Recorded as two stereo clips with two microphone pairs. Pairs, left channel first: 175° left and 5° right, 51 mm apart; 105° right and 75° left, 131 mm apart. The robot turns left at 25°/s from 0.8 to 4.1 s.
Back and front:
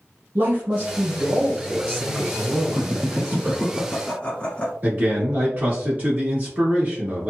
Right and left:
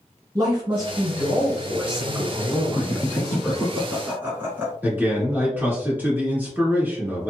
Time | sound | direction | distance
0.3 | a man speaking | 30° left | 1.6 m
2.7 | laughter | 175° left | 1.5 m
4.8 | a man speaking | 10° left | 1.4 m